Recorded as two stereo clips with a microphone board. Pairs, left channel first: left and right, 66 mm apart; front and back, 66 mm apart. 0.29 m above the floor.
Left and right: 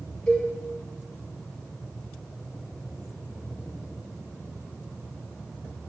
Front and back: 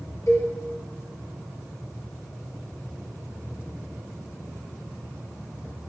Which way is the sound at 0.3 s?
20° left.